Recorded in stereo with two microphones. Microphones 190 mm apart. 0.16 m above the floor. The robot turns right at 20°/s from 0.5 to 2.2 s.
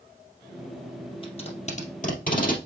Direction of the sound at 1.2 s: 30° left (ahead or behind).